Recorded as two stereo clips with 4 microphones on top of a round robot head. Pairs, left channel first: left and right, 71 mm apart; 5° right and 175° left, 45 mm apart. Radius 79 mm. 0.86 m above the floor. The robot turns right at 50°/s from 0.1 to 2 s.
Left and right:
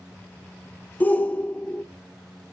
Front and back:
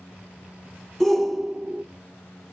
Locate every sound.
1.0 s a shout: 75° left, 0.7 m; by 1.8 s 115° left, 0.7 m